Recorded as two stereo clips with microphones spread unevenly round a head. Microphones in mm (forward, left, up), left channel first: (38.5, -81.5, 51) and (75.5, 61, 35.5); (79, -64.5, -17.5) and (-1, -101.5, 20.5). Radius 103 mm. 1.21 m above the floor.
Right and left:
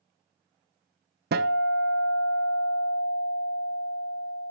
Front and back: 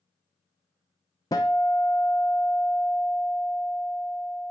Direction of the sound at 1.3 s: 90° left.